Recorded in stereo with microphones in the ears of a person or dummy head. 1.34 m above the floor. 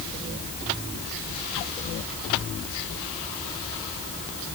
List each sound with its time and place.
Only background noise.